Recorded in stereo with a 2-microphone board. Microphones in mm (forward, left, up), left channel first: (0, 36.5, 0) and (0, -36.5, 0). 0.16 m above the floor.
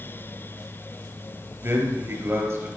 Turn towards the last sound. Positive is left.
turn(degrees=-40)  # may be behind; listen again after turning